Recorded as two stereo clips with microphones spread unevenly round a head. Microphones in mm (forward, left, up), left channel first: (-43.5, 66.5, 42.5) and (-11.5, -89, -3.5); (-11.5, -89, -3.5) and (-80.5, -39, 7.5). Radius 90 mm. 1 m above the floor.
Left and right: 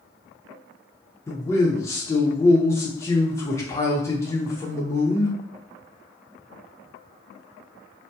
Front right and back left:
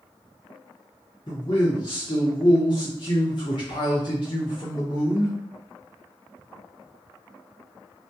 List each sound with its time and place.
1.3 s a man speaking: 25° left, 0.6 m